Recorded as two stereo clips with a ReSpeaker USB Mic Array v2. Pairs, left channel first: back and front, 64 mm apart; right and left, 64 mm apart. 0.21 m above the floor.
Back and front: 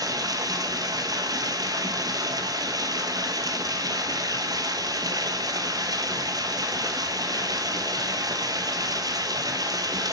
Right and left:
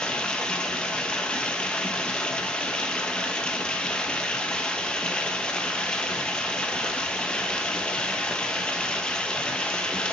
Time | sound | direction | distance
0.0 | running water | 15° right | 1.2 m